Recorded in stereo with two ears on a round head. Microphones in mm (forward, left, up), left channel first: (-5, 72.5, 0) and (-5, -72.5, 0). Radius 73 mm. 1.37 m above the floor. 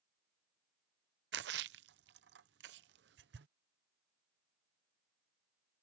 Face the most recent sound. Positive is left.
turn(degrees=-75)  # may be behind; listen again after turning